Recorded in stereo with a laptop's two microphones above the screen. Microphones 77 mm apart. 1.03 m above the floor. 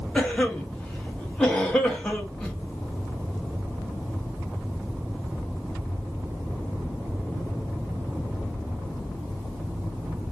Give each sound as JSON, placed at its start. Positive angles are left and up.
{"t": 0.1, "sound": "a cough", "side_deg": 10, "distance_m": 0.7}